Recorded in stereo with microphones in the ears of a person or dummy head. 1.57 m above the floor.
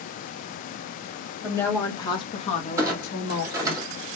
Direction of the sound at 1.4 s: 10° left (ahead or behind).